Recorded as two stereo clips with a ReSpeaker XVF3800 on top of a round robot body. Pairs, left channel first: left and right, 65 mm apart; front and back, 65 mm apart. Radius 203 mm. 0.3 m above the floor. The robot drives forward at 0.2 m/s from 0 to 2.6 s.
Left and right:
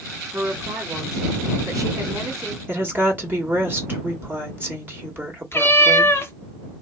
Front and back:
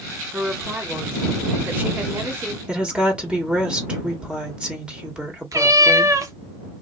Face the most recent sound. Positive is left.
turn(degrees=145)